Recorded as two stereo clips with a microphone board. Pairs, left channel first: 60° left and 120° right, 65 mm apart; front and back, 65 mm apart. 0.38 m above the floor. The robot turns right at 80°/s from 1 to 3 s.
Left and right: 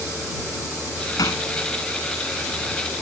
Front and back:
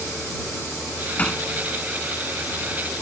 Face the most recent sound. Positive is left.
turn(degrees=-150)